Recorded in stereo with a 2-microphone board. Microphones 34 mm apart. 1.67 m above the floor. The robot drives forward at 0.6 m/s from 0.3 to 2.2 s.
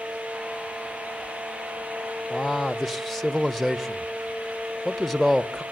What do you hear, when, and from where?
2.3 s a man speaking: centre (ahead or behind), 0.9 m